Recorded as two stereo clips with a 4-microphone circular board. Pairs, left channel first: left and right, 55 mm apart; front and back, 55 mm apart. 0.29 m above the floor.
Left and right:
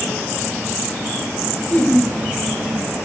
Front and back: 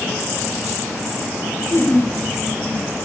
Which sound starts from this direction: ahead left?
Laughter, at 1.7 s.